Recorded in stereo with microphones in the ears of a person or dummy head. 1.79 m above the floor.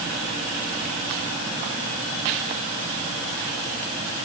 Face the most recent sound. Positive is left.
No sound to turn to.